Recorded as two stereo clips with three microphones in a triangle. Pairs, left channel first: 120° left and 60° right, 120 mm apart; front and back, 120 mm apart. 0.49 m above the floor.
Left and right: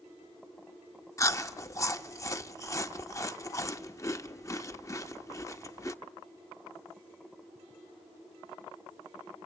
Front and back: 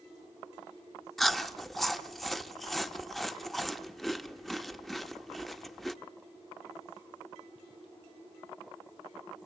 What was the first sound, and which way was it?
Chewing, 85° left.